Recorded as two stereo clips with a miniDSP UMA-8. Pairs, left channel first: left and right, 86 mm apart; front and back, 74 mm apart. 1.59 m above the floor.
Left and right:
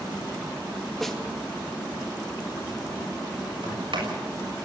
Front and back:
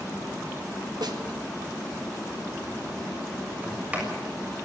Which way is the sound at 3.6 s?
110° right.